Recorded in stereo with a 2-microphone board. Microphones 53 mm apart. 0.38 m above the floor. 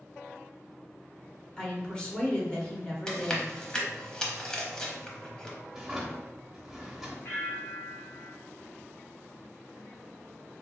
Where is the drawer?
Centre (ahead or behind), 0.9 m.